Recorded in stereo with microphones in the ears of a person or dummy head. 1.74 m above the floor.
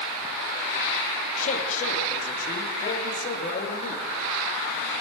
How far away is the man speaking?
About 3 m.